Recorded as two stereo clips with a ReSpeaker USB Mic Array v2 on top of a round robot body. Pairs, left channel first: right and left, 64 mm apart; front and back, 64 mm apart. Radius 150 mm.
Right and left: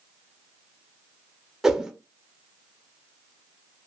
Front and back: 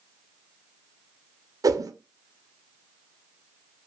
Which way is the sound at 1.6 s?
175° left.